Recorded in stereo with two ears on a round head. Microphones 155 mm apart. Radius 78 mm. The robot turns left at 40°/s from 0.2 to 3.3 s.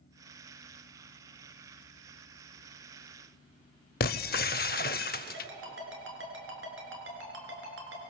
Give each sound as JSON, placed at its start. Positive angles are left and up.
{"t": 4.0, "sound": "breaking glass", "side_deg": 60, "distance_m": 0.6}
{"t": 5.3, "sound": "a ringtone", "side_deg": -90, "distance_m": 5.5}